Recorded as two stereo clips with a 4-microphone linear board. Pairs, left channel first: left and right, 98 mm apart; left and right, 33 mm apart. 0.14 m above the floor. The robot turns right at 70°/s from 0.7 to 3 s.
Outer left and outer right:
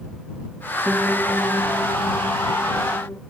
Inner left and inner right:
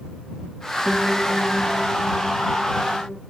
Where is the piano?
10° right; by 3.2 s 140° left.